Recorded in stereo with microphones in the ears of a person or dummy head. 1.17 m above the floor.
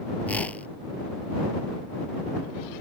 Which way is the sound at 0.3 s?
10° left (ahead or behind).